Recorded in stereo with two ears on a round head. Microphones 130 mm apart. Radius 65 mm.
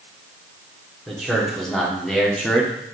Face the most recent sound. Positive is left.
turn(degrees=5)  # may be behind; listen again after turning